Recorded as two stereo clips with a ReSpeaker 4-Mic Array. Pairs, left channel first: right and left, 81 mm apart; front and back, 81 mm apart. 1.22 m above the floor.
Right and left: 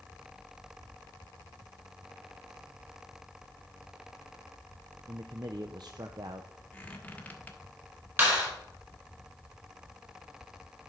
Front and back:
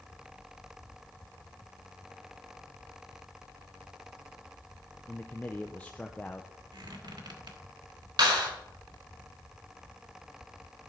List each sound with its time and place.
5.1 s a man speaking: 70° left, 0.5 m
6.7 s a squeak: 160° right, 1.3 m
8.2 s a clap: 150° left, 4.5 m